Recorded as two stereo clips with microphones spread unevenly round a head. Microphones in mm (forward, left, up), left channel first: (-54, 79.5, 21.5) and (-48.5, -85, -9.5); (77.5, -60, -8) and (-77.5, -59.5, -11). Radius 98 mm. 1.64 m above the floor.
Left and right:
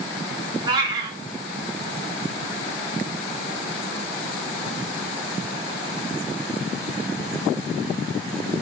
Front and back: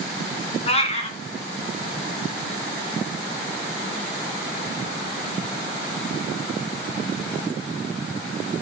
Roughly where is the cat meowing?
Ahead.